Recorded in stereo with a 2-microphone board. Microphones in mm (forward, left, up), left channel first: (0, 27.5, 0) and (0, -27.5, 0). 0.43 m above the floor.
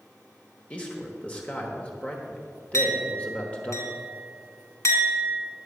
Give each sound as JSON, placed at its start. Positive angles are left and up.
{"t": 0.7, "sound": "a man speaking", "side_deg": 25, "distance_m": 1.2}
{"t": 2.7, "sound": "a clink", "side_deg": 70, "distance_m": 2.0}